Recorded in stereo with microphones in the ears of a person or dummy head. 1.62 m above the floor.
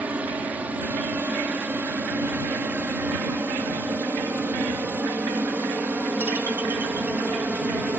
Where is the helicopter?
10° right (ahead or behind); by 8.0 s 5° right (ahead or behind).